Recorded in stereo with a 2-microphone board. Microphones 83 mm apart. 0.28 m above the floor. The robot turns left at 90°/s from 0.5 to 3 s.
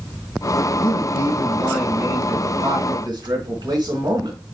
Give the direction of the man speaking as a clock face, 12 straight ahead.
9 o'clock.